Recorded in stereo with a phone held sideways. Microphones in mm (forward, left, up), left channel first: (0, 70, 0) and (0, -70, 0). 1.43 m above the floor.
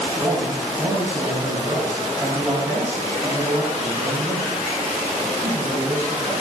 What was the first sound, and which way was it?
A man speaking, 20° right (ahead or behind).